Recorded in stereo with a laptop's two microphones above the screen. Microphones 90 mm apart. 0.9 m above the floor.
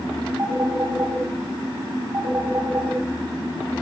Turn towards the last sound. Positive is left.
turn(degrees=-25)  # may be behind; listen again after turning